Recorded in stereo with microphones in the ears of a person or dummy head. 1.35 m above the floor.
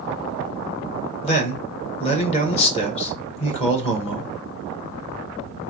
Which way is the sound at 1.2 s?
40° left (ahead or behind).